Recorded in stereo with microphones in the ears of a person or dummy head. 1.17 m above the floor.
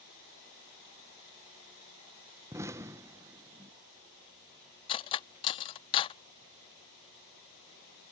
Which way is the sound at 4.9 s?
25° left (ahead or behind).